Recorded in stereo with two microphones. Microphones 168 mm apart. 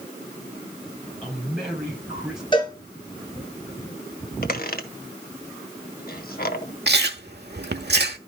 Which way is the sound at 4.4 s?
60° left (ahead or behind).